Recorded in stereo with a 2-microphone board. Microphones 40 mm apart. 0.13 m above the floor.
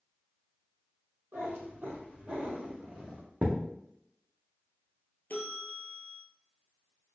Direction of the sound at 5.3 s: 55° left (ahead or behind).